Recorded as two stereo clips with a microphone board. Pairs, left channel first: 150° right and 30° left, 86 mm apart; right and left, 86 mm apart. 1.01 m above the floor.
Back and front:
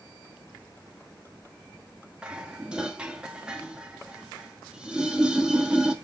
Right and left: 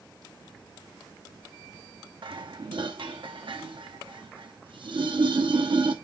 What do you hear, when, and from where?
2.2 s dishes clattering: 110° left, 0.9 m